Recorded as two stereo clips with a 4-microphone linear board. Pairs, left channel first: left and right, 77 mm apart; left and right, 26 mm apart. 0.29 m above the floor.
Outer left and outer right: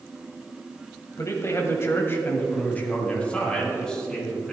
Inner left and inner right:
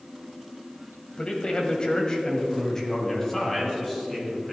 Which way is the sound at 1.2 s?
40° left (ahead or behind).